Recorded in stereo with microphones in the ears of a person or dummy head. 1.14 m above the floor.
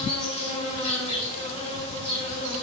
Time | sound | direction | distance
0.0 | an insect | 35° left (ahead or behind) | 4 m